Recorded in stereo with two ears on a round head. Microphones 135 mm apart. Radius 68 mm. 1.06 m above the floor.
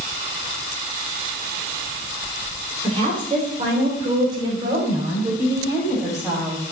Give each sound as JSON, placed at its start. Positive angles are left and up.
{"t": 2.8, "sound": "a woman speaking", "side_deg": -40, "distance_m": 3.5}